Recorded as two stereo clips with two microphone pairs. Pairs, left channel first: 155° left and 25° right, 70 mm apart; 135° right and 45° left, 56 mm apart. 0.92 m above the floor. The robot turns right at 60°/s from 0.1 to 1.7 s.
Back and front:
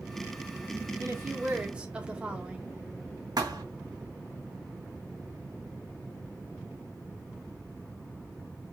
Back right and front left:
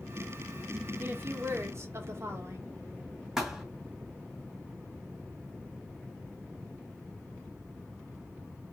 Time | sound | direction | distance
1.0 | a woman speaking | 5° left | 1.1 m
3.4 | a thud | 35° right | 1.7 m